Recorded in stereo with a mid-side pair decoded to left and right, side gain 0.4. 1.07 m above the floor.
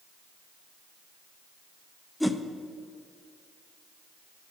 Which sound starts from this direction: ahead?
A whoosh, at 2.2 s.